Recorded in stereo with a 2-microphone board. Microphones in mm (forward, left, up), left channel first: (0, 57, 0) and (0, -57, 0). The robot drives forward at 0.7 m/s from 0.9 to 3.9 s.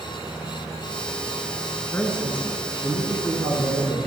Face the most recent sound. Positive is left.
turn(degrees=10)  # may be behind; listen again after turning